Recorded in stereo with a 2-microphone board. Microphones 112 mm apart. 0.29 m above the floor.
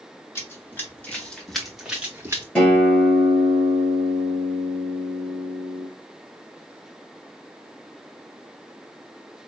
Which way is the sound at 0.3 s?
25° left (ahead or behind).